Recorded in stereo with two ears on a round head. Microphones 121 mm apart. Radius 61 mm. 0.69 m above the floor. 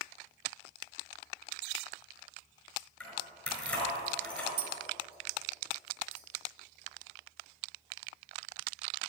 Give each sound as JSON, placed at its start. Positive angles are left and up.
{"t": 3.0, "sound": "keys jangling", "side_deg": 10, "distance_m": 5.0}
{"t": 4.6, "sound": "tapping", "side_deg": -40, "distance_m": 1.4}